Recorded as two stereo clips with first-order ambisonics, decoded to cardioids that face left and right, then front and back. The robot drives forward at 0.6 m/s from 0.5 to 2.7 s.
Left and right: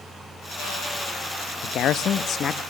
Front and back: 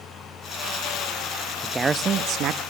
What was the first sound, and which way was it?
A man speaking, 95° left.